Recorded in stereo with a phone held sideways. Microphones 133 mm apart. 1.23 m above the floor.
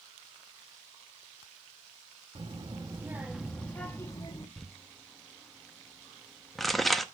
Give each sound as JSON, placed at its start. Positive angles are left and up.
{"t": 2.4, "sound": "a child speaking", "side_deg": -40, "distance_m": 0.9}
{"t": 4.6, "sound": "crumpling", "side_deg": 0, "distance_m": 0.6}